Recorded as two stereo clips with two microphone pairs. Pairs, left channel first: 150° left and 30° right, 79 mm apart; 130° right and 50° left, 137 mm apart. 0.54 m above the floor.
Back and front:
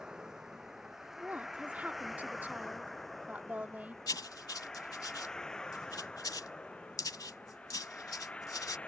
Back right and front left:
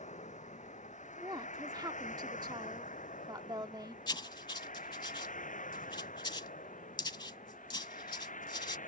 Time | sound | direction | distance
0.0 | a vehicle | 110° right | ?
1.2 | a woman speaking | 20° left | ?
4.1 | writing | straight behind | ?